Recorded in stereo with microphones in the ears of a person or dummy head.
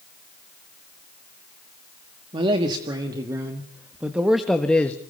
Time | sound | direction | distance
2.3 | a man speaking | 35° right (ahead or behind) | 2.5 m